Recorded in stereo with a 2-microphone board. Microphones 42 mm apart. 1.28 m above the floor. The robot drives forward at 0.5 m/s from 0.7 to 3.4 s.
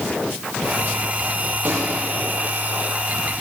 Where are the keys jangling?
I don't hear keys jangling.